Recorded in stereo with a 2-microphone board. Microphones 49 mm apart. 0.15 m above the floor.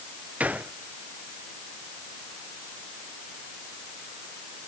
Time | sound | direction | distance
0.4 | a gunshot | 35° right (ahead or behind) | ?